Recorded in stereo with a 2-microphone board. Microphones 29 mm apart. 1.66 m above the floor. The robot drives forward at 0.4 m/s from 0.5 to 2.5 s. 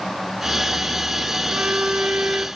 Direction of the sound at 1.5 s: 55° right (ahead or behind).